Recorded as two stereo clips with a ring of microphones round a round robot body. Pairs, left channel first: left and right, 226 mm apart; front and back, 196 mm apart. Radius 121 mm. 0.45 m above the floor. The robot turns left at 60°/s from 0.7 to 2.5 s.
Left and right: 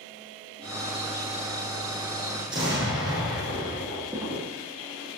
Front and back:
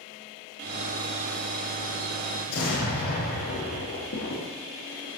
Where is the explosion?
15° right, 5.5 m; by 5.1 s 20° right, 5.5 m.